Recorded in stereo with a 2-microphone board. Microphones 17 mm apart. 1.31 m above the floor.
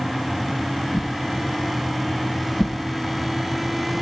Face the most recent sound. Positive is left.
turn(degrees=35)  # may be behind; listen again after turning